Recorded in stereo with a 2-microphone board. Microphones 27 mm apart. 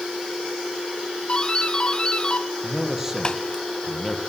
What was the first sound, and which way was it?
A doorbell, 30° left (ahead or behind).